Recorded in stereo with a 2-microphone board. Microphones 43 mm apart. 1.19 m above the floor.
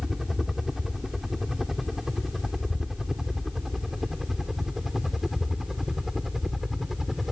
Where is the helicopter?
10° right (ahead or behind); by 7.3 s 5° right (ahead or behind).